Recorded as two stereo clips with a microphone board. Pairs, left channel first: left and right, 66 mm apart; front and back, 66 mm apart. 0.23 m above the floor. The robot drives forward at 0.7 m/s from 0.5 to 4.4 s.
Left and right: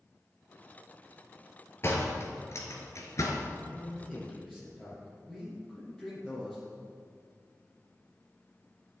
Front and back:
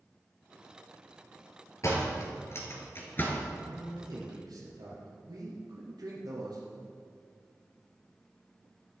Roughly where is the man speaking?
Behind.